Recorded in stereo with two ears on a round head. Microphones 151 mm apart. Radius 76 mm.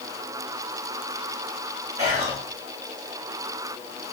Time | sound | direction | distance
2.0 | whispering | 20° right (ahead or behind) | 1.0 m